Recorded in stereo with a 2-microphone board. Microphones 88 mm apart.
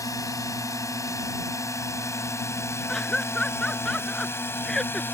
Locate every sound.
0.0 s a drone: 40° left (ahead or behind); by 5.1 s 25° left (ahead or behind)
2.9 s laughter: 5° left (ahead or behind)